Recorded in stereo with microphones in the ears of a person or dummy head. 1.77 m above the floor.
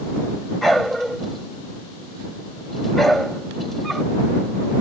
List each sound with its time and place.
0.6 s a dog barking: centre (ahead or behind)